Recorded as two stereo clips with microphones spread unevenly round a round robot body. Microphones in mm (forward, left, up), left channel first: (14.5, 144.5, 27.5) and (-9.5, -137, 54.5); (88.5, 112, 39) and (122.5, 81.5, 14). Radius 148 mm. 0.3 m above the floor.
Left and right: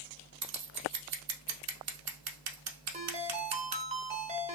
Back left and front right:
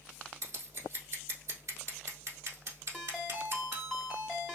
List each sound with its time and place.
0.4 s scissors: 60° right, 0.8 m
2.9 s a ringtone: 55° right, 0.9 m